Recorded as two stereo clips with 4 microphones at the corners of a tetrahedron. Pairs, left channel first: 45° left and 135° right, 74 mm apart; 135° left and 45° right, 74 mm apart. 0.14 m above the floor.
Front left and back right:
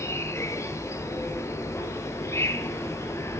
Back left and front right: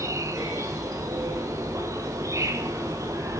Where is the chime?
No chime in this recording.